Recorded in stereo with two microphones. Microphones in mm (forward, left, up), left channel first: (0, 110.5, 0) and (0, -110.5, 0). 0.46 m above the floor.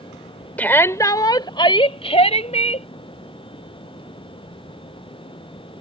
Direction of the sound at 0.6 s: 5° left (ahead or behind).